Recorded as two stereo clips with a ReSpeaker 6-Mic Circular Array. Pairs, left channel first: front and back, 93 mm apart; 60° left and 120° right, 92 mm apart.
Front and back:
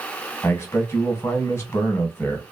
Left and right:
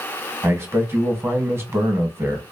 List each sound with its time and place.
0.4 s a man speaking: 60° right, 0.8 m